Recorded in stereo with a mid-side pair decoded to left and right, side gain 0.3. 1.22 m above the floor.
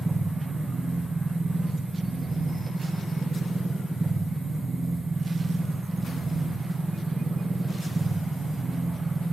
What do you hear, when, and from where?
0.0 s a machine running: 55° right, 3 m